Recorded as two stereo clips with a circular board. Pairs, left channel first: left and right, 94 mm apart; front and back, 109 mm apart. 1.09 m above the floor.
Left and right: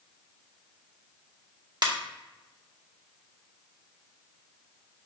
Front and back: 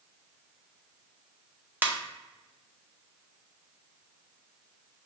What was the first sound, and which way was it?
A ringtone, 115° right.